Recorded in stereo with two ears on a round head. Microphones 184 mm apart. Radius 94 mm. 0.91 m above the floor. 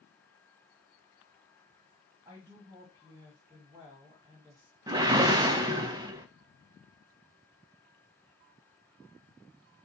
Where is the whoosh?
20° right (ahead or behind), 0.5 m.